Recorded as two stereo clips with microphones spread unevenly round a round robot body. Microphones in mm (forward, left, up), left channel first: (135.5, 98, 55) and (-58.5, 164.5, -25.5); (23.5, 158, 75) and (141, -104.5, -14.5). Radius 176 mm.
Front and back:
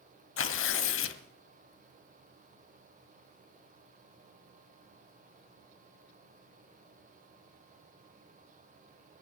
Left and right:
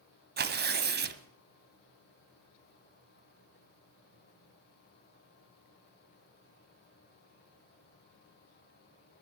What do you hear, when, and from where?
0.4 s tearing paper: 5° right, 1.5 m